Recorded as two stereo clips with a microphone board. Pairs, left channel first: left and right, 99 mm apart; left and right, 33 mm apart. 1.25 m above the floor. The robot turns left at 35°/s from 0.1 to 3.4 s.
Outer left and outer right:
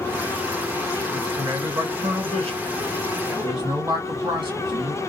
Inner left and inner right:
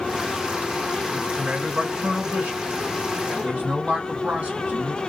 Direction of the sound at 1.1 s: 45° right.